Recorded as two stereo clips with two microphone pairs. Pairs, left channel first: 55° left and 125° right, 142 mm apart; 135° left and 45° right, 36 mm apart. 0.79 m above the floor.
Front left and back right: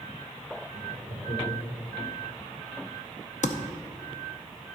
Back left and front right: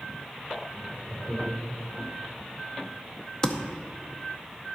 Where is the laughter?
60° left, 2.5 m.